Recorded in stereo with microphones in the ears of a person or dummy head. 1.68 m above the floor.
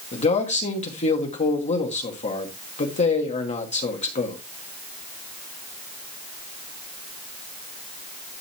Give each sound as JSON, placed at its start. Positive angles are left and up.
{"t": 0.1, "sound": "a man speaking", "side_deg": 35, "distance_m": 1.8}